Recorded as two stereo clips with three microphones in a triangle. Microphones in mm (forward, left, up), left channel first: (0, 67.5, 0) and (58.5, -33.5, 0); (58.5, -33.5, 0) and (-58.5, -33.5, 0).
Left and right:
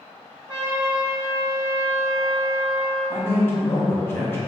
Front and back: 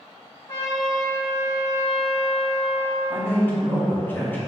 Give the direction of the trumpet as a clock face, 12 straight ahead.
12 o'clock.